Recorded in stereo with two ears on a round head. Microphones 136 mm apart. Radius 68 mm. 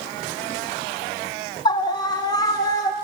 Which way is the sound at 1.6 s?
30° left (ahead or behind).